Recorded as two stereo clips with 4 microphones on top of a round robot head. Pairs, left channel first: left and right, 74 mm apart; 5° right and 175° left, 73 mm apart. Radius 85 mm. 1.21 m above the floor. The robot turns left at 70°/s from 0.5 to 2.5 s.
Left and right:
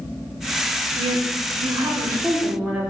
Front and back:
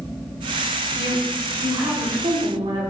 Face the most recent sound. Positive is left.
turn(degrees=-160)